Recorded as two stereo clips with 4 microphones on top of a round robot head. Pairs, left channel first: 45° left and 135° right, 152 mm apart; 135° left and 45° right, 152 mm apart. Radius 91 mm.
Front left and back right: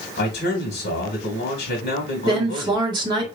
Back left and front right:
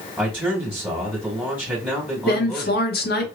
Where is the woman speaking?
160° left, 1.4 m.